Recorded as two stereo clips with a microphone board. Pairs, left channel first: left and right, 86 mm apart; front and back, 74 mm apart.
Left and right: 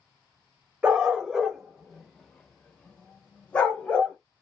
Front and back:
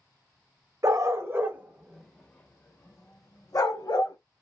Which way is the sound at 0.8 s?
165° right.